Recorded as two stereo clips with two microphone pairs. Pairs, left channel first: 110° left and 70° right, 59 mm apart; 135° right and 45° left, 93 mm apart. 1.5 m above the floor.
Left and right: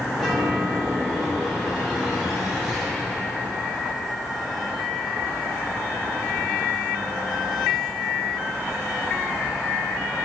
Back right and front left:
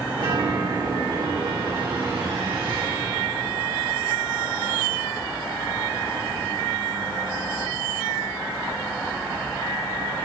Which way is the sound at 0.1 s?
25° left.